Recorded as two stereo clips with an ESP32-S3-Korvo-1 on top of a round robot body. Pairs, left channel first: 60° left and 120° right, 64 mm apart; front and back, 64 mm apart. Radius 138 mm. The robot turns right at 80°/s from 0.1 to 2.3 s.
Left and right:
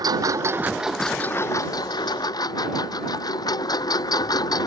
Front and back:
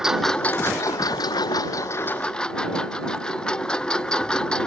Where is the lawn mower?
100° right; by 4.7 s 80° left.